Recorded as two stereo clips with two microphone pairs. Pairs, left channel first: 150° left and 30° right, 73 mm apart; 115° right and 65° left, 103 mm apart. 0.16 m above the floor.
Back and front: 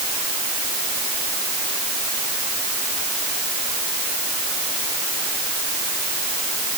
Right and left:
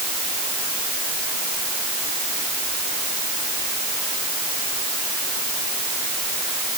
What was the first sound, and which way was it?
Only background noise.